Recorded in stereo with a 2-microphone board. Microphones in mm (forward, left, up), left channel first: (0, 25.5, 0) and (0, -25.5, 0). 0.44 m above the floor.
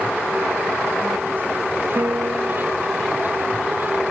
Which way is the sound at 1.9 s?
75° right (ahead or behind).